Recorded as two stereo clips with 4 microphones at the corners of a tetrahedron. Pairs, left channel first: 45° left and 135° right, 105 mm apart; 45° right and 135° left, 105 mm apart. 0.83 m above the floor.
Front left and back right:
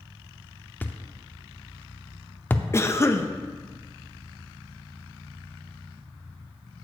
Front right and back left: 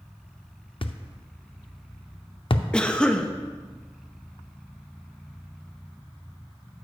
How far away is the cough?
About 0.6 m.